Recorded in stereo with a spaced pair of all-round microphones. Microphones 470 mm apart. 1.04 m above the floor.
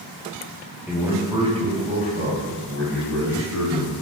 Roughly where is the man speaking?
Centre.